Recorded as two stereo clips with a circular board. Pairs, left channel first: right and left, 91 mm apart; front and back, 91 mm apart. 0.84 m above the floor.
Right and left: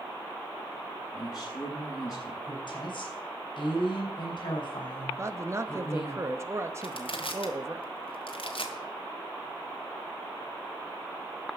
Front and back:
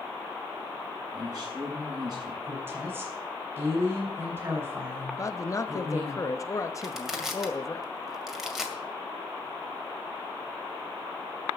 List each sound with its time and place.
1.1 s a man speaking: 135° right, 6.5 m
2.4 s a woman speaking: 115° right, 5 m
5.2 s a man speaking: 40° left, 1.0 m
6.8 s crushing: 95° right, 2 m